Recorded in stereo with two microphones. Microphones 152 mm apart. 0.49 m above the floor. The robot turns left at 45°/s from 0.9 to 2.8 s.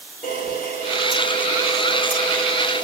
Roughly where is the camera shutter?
Ahead right.